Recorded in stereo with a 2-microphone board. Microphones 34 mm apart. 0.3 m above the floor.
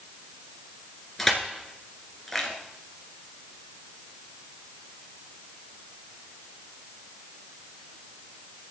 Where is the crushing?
5° left (ahead or behind), 2.5 m.